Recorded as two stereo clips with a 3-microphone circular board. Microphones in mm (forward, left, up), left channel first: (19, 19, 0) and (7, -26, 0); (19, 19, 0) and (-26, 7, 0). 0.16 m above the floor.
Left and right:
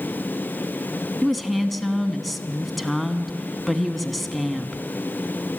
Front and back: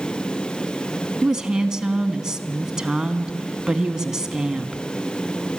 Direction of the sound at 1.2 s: 160° left.